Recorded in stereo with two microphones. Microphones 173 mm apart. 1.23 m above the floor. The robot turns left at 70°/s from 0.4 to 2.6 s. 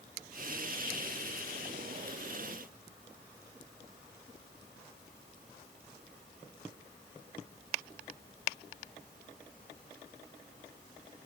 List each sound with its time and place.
Only background noise.